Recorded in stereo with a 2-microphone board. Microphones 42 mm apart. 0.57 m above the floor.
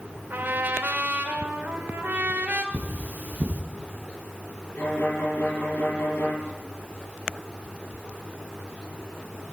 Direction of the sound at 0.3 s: 55° right (ahead or behind).